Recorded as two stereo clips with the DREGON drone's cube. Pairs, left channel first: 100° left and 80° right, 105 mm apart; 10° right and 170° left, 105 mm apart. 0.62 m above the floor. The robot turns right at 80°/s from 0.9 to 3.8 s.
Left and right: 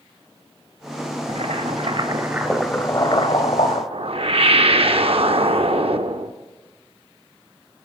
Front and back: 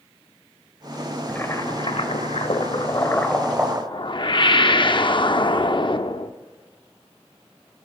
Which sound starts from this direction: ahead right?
A whoosh, at 3.9 s.